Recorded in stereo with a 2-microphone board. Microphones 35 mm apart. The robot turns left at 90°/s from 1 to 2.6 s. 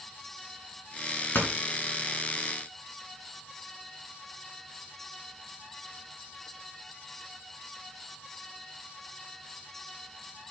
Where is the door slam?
70° left (ahead or behind), 2.5 m; by 1.5 s 65° left (ahead or behind), 2.5 m.